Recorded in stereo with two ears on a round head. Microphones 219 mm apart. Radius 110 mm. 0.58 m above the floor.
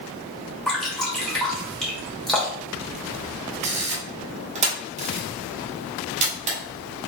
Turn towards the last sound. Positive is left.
turn(degrees=-30)  # may be behind; listen again after turning